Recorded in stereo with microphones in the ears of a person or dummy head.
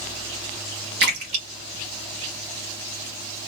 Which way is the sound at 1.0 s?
65° right (ahead or behind).